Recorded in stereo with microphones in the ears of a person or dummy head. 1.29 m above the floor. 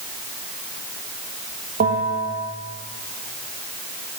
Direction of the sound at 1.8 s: 50° right (ahead or behind).